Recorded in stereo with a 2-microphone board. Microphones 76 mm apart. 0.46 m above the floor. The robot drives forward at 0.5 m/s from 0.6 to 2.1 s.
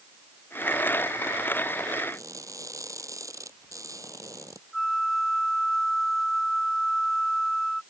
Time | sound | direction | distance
2.1 | crushing | 40° right (ahead or behind) | ?
4.7 | a flute | centre (ahead or behind) | ?